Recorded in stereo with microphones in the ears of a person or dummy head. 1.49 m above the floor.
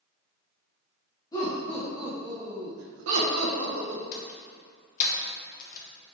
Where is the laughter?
25° left (ahead or behind), 1.8 m; by 4.0 s 85° right, 2.5 m.